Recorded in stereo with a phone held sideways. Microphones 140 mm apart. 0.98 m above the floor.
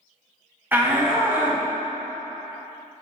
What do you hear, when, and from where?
0.7 s a shout: 15° right (ahead or behind), 1.0 m